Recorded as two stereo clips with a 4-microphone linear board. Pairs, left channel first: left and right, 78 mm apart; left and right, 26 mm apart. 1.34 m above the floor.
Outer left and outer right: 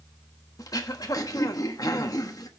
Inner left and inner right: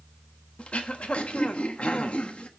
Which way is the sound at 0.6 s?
50° left (ahead or behind).